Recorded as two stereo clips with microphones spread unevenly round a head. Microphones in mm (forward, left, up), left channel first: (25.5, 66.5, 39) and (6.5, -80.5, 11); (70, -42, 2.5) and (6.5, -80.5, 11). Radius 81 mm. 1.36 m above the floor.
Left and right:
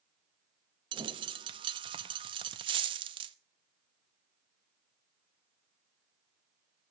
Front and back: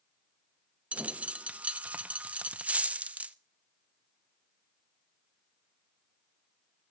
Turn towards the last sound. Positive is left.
turn(degrees=-145)